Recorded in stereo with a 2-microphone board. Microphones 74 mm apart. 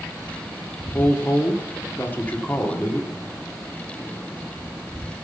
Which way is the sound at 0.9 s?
25° left (ahead or behind).